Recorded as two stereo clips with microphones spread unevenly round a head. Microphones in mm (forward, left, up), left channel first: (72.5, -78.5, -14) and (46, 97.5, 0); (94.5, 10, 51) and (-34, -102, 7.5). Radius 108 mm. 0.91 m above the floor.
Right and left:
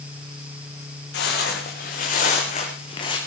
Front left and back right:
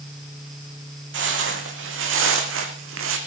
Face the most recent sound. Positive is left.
turn(degrees=-155)